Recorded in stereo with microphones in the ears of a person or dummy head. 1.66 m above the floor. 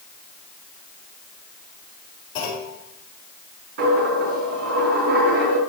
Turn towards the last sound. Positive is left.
turn(degrees=-65)  # may be behind; listen again after turning